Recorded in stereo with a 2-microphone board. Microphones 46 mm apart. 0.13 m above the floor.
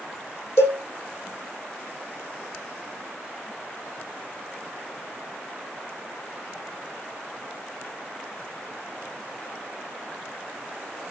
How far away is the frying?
I don't hear frying.